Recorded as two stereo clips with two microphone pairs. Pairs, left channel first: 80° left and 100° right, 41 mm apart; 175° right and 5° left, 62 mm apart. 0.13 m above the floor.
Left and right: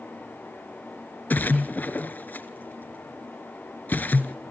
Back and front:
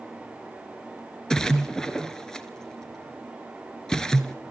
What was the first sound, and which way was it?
A splash, 110° left.